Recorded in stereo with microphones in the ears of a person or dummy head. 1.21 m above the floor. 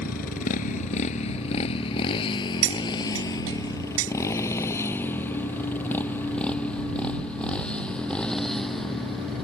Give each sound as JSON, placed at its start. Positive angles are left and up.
{"t": 0.0, "sound": "a motorcycle", "side_deg": 55}
{"t": 2.6, "sound": "cutlery clinking", "side_deg": -80}